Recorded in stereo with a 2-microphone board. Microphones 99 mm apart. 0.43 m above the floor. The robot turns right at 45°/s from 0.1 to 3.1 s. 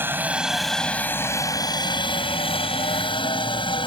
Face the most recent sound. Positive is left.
turn(degrees=55)  # may be behind; listen again after turning